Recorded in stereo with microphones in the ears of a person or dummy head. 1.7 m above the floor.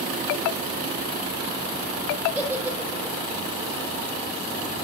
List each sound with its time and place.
2.4 s a giggle: 10° right (ahead or behind), 1.7 m